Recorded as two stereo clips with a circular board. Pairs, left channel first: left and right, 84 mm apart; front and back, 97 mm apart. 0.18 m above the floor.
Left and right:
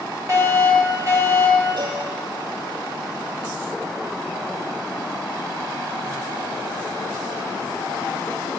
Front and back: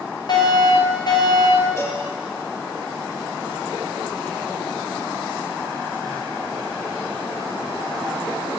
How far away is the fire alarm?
About 5.5 m.